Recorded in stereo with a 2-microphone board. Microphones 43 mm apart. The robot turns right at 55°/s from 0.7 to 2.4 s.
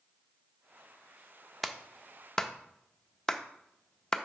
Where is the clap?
Centre (ahead or behind), 0.5 m; by 4.2 s 15° left (ahead or behind), 0.5 m.